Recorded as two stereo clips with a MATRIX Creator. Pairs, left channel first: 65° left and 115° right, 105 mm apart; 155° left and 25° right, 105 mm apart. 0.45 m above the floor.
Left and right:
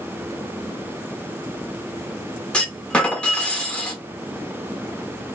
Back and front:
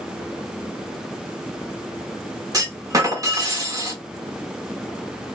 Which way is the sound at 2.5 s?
5° right.